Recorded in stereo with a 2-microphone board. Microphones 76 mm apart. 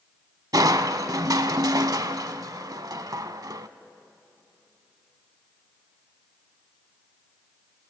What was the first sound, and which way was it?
Crushing, 55° right (ahead or behind).